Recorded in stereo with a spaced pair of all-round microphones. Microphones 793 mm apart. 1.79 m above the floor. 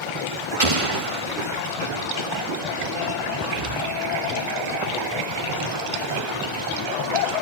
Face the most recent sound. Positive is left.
turn(degrees=-40)  # may be behind; listen again after turning